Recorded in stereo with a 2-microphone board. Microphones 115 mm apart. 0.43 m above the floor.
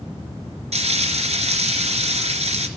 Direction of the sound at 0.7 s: 75° right (ahead or behind).